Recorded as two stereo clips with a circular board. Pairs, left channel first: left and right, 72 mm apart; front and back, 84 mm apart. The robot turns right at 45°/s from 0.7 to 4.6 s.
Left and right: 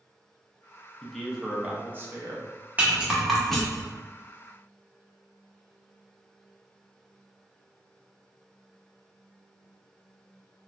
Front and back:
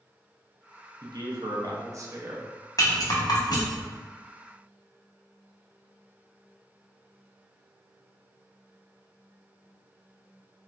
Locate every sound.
1.0 s a man speaking: 170° left, 0.5 m; by 2.5 s 120° right, 0.5 m
2.8 s a rattle: 30° right, 0.7 m; by 3.9 s 25° left, 0.7 m